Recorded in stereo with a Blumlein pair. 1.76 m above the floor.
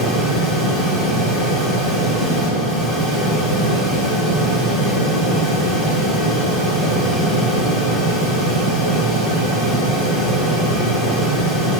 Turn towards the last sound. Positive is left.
turn(degrees=10)